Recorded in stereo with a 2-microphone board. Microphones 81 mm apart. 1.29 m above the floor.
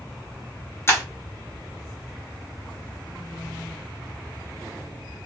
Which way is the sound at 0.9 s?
30° left (ahead or behind).